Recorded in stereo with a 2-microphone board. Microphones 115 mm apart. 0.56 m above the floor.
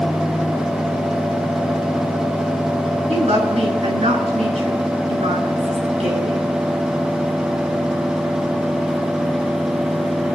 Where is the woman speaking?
65° right (ahead or behind), 6 m.